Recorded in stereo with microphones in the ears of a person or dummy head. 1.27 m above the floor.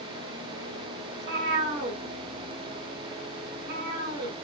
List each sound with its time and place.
1.1 s a cat meowing: 50° right (ahead or behind), 0.9 m